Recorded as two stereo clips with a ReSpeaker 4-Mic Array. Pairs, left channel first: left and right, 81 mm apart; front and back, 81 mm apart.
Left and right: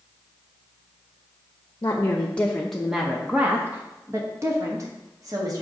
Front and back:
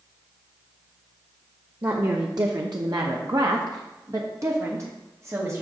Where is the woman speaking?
145° left, 0.9 m; by 5.6 s 125° right, 1.8 m.